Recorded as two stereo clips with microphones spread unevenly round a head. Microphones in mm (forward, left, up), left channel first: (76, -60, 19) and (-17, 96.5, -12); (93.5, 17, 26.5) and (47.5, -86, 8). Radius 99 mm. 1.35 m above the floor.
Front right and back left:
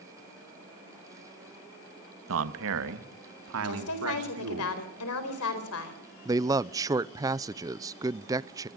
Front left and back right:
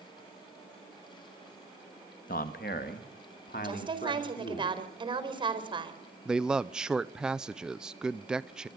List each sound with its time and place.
2.3 s a man speaking: 110° left, 1.5 m; by 4.6 s 120° left, 4 m
3.6 s a woman speaking: 65° right, 4.5 m
6.2 s a man speaking: 175° left, 0.5 m